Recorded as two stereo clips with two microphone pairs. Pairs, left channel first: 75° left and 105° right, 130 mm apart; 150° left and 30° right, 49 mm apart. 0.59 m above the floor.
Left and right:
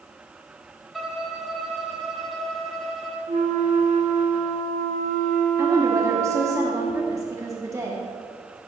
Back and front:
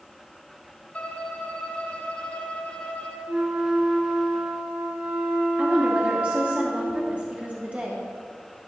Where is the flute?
95° right, 1.3 m.